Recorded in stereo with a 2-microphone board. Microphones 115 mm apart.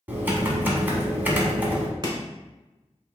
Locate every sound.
0.1 s typing on a keyboard: 15° right (ahead or behind), 1.0 m
2.0 s chopping: 35° right (ahead or behind), 1.1 m